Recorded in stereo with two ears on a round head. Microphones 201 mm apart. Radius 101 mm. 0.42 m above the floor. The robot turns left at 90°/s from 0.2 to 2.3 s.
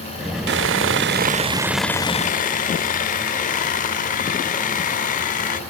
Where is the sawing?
60° right, 0.7 m; by 5.6 s 135° left, 0.7 m.